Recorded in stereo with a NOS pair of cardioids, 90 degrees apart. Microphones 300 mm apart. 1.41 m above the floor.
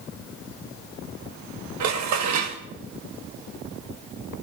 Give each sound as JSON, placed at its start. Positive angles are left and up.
{"t": 1.8, "sound": "dishes clattering", "azimuth_deg": -70, "distance_m": 1.4}